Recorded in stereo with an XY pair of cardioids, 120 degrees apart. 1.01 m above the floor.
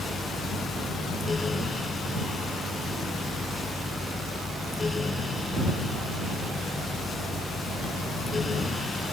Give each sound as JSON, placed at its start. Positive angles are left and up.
{"t": 0.0, "sound": "a fan", "azimuth_deg": 25}